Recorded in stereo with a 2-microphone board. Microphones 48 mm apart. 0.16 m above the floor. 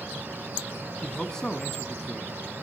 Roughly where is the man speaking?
Centre.